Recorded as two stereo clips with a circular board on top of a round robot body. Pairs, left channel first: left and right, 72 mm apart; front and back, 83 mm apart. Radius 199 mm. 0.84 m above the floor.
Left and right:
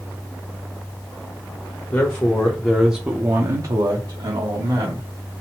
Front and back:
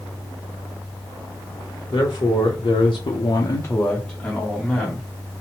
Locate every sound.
1.9 s a man speaking: 35° left, 1.0 m; by 5.1 s 95° right, 1.4 m